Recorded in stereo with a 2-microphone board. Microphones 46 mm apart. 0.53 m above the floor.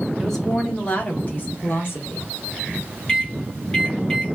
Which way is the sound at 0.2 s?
5° left (ahead or behind).